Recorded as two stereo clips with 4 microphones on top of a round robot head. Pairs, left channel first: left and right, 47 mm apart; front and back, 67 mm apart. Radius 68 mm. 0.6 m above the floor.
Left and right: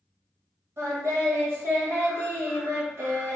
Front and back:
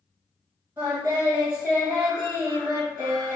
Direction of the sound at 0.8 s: 115° right.